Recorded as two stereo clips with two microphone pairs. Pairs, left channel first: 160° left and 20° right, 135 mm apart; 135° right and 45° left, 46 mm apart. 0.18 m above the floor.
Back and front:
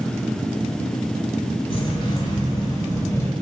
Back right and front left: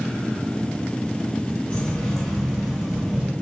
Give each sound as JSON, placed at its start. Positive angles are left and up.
{"t": 1.7, "sound": "keys jangling", "azimuth_deg": 170, "distance_m": 1.1}